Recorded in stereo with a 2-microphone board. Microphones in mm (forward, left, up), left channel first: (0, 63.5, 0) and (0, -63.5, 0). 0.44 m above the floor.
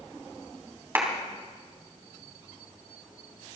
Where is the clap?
20° right (ahead or behind), 3 m.